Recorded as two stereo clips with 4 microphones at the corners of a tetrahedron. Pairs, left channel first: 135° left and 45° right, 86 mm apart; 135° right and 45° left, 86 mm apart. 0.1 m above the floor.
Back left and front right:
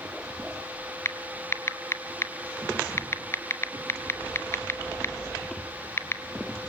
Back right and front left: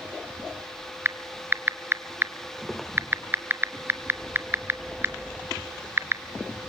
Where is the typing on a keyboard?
90° left, 0.8 m.